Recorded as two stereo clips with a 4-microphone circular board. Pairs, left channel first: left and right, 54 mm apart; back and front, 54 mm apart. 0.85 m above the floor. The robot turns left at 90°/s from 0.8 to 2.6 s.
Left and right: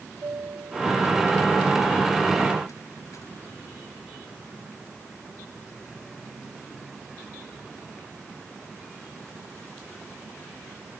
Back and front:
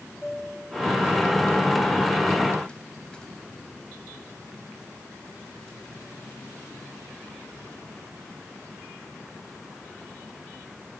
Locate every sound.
0.2 s a chime: 90° right; by 3.3 s 110° left